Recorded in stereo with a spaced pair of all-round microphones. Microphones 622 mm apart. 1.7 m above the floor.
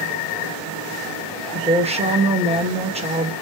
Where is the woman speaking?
10° right (ahead or behind), 1.1 m.